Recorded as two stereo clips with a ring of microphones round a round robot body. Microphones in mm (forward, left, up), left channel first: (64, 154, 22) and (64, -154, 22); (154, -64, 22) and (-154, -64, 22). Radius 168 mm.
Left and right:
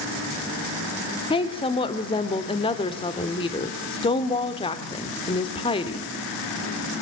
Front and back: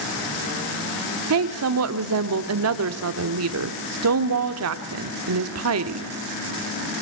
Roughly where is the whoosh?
No whoosh in this recording.